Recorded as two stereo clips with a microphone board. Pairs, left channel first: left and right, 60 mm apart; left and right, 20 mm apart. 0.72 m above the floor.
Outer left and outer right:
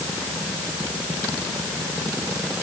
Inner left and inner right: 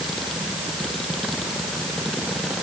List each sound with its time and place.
Only background noise.